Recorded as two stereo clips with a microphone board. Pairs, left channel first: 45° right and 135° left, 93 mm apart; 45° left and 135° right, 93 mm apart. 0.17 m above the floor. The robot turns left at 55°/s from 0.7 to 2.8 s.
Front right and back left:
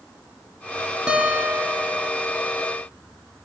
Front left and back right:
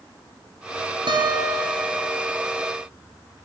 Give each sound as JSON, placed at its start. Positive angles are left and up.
{"t": 1.1, "sound": "a guitar", "azimuth_deg": -145, "distance_m": 1.9}